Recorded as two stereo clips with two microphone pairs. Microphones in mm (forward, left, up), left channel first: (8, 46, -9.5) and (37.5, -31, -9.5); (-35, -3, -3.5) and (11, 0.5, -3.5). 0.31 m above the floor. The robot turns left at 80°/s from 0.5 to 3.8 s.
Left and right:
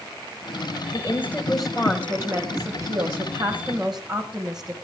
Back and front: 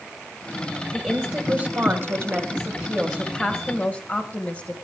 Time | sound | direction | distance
0.9 | a woman speaking | 80° left | 1.8 m